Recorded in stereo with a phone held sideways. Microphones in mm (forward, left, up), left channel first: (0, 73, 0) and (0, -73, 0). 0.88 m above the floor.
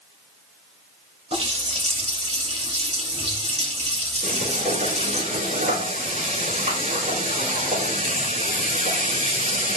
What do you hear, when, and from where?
1.3 s a running tap: 45° right (ahead or behind), 3 m
4.2 s frying: 70° right (ahead or behind), 5.5 m